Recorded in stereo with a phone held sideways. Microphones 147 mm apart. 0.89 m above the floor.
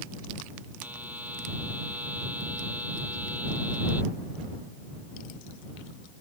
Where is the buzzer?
10° right (ahead or behind).